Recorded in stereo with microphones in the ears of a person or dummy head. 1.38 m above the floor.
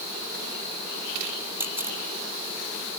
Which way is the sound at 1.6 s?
10° right (ahead or behind).